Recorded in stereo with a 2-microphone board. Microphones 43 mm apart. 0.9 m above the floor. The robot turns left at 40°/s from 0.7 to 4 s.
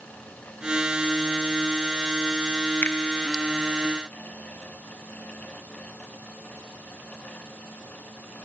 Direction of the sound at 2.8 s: 55° left (ahead or behind).